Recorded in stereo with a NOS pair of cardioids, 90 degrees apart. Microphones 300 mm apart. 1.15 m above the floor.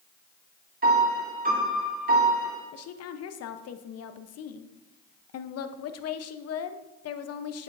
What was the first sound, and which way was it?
A piano, 30° right.